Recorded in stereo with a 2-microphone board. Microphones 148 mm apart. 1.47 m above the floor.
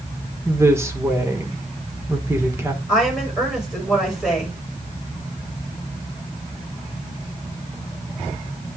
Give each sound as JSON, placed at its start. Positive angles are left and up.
{"t": 0.5, "sound": "a woman speaking", "side_deg": -20, "distance_m": 1.4}
{"t": 2.9, "sound": "a woman speaking", "side_deg": -5, "distance_m": 5.5}